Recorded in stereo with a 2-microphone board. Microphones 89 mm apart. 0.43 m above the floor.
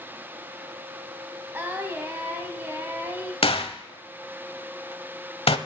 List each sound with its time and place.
1.5 s singing: 25° right (ahead or behind), 1.9 m
3.4 s a gunshot: 80° left, 0.7 m